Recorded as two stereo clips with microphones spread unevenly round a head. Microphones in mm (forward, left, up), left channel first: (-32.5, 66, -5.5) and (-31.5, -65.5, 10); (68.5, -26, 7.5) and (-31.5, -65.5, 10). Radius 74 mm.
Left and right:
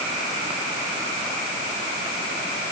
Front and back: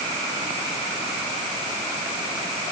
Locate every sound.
Only background noise.